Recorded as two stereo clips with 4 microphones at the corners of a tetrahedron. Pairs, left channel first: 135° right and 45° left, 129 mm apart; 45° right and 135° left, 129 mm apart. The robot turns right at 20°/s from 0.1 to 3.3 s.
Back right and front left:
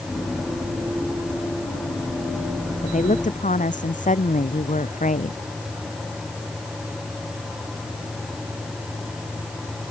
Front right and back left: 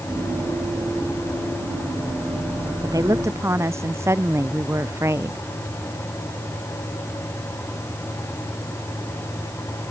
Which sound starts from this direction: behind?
A woman speaking, at 2.8 s.